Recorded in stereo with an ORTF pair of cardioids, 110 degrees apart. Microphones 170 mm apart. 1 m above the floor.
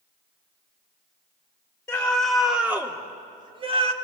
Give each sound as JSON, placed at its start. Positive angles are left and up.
{"t": 1.9, "sound": "a scream", "azimuth_deg": 10, "distance_m": 3.0}